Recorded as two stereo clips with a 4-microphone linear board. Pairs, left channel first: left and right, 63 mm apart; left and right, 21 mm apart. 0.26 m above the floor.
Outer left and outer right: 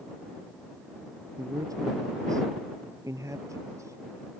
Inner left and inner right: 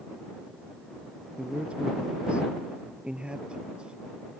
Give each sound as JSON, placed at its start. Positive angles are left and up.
{"t": 1.4, "sound": "a man speaking", "side_deg": -75}